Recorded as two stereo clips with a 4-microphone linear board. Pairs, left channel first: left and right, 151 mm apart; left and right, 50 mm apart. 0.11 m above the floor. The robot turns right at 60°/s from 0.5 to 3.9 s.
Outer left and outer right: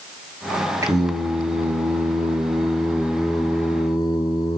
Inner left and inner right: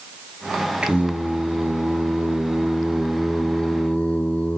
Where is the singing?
150° right, 1.0 m; by 4.6 s 35° left, 1.0 m.